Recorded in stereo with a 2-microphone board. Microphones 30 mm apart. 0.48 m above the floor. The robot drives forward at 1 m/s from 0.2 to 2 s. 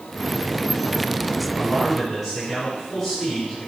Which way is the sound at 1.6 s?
Centre (ahead or behind).